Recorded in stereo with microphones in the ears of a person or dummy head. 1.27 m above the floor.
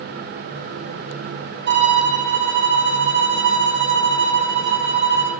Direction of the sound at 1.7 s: 60° right (ahead or behind).